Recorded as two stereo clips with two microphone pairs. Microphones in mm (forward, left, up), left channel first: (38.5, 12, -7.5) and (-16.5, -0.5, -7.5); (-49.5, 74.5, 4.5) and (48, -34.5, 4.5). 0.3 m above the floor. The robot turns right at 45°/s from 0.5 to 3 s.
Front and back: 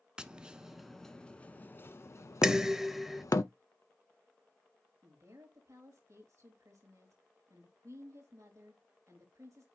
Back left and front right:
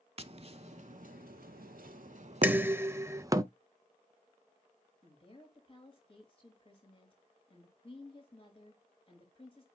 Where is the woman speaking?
175° right, 5 m.